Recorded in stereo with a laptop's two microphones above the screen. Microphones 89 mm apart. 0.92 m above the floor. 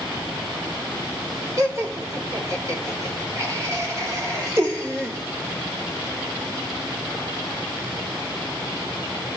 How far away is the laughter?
About 3.5 m.